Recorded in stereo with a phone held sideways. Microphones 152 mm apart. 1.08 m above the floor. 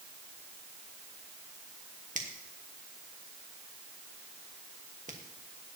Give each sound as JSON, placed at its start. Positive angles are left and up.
{"t": 2.1, "sound": "a finger snap", "side_deg": -55, "distance_m": 1.5}